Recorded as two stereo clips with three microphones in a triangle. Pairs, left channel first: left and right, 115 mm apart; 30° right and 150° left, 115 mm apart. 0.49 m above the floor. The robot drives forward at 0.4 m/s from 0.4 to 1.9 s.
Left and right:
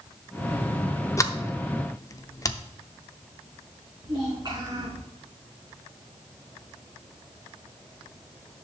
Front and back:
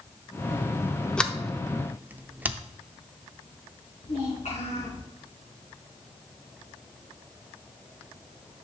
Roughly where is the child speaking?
Ahead right.